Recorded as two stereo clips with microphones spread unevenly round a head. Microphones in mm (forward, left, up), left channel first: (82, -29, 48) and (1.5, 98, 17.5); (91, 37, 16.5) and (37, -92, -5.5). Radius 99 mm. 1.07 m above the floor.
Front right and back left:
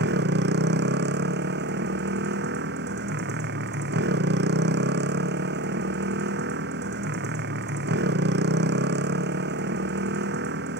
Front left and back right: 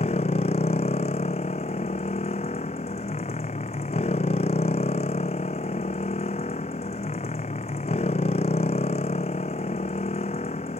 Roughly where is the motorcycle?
Behind left.